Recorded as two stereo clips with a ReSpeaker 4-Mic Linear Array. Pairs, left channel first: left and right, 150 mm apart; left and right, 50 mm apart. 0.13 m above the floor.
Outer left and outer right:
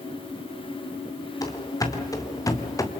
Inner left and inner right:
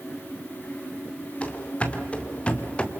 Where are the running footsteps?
25° left (ahead or behind), 3 m; by 2.9 s 20° left (ahead or behind), 1.6 m.